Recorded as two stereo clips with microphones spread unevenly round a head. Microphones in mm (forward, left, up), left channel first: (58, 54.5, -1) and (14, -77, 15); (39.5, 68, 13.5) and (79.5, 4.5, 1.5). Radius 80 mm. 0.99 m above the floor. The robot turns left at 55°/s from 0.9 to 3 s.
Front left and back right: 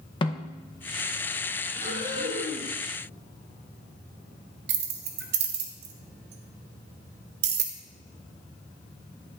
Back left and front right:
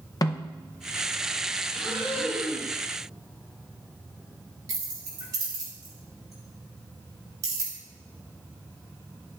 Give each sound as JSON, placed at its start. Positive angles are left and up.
{"t": 0.2, "sound": "a snare drum", "azimuth_deg": 100, "distance_m": 0.6}
{"t": 1.8, "sound": "breathing", "azimuth_deg": -105, "distance_m": 4.5}
{"t": 4.7, "sound": "keys jangling", "azimuth_deg": -115, "distance_m": 0.9}